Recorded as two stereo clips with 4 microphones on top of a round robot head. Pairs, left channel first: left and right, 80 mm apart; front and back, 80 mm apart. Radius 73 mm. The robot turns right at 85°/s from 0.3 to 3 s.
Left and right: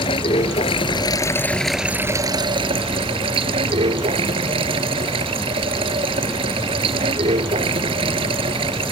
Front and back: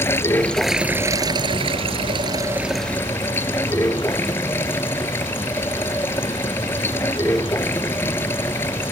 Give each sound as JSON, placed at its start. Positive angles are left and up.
{"t": 0.0, "sound": "running water", "azimuth_deg": 60}